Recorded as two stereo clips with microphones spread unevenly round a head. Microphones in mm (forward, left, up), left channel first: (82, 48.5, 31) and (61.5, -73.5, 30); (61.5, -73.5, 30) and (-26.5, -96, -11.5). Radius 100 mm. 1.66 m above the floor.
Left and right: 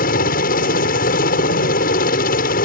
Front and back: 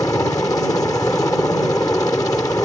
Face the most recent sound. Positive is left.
turn(degrees=90)